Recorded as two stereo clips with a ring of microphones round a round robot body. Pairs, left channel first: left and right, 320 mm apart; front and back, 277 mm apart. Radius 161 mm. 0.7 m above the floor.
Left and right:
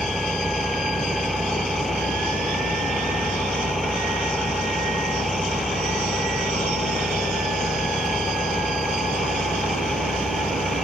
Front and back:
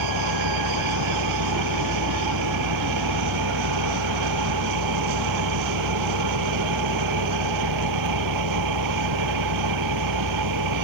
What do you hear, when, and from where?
0.0 s an engine running: straight behind